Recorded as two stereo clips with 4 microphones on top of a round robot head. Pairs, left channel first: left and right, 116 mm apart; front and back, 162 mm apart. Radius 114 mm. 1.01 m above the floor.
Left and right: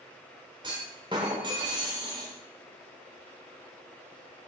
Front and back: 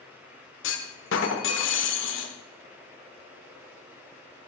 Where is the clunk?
20° right, 1.2 m.